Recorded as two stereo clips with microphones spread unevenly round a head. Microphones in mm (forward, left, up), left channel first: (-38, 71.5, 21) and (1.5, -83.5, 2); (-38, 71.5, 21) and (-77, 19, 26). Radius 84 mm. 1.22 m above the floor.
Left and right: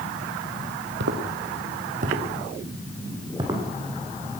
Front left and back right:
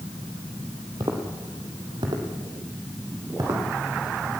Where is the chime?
I don't hear a chime.